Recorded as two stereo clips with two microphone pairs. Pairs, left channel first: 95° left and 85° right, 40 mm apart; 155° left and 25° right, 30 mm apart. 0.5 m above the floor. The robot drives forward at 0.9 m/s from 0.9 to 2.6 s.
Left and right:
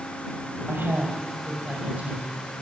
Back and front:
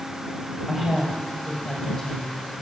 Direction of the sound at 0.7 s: 115° right.